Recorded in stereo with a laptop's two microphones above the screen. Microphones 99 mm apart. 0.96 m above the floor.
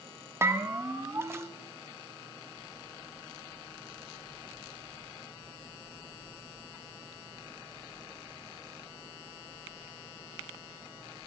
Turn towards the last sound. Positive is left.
turn(degrees=-25)  # may be behind; listen again after turning